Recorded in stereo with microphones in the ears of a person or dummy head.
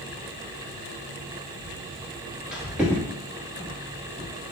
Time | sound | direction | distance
1.6 | footsteps | 10° left (ahead or behind) | 1.7 m